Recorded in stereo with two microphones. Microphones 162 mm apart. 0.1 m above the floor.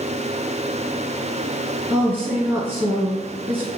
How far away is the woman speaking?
About 1.6 m.